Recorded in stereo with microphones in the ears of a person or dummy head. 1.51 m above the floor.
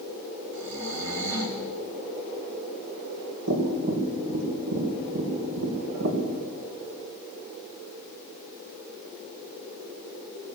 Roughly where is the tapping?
Right.